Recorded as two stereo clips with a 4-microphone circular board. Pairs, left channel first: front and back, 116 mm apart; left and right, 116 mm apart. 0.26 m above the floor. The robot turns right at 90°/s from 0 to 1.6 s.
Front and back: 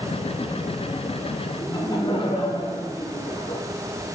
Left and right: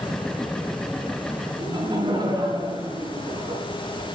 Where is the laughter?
50° right, 2 m; by 3.6 s 45° right, 2 m.